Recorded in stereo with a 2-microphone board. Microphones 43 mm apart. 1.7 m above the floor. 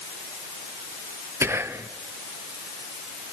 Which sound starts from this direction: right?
Whispering, at 1.4 s.